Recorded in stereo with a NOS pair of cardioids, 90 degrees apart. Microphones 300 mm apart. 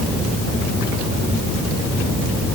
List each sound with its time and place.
Only background noise.